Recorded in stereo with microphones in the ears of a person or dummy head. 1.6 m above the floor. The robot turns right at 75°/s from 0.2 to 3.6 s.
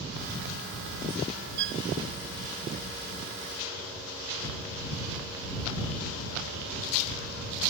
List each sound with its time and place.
1.6 s a violin: 55° right (ahead or behind); by 1.8 s 75° right (ahead or behind)